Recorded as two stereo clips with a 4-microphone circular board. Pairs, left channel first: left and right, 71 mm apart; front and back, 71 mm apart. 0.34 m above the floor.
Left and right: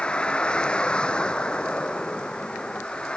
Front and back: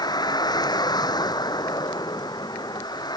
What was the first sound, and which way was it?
A vehicle, 15° left.